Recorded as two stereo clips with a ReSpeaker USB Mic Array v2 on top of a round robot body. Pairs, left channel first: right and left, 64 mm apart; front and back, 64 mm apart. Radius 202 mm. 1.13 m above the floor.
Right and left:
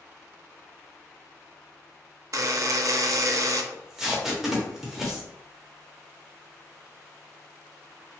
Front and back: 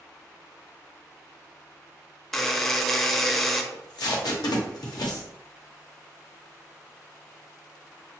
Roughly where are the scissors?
No scissors in this recording.